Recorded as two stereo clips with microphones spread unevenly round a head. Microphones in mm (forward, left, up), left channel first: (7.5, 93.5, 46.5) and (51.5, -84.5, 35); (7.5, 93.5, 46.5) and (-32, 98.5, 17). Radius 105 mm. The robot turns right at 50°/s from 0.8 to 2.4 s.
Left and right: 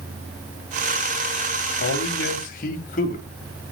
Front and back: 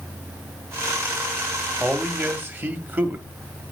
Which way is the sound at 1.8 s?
125° left.